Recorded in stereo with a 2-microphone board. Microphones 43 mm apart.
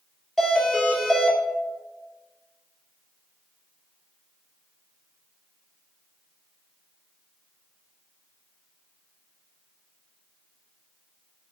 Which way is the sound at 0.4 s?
Centre (ahead or behind).